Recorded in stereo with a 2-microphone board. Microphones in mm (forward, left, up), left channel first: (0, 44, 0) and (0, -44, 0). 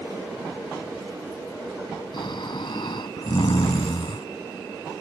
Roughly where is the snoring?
Left.